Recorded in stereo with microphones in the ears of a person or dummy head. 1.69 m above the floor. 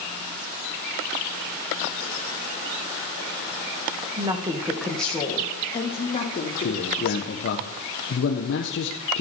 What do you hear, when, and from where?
4.2 s a woman speaking: 20° right (ahead or behind), 1.5 m; by 7.4 s 50° left (ahead or behind), 2.5 m
6.6 s a man speaking: 60° left (ahead or behind), 1.3 m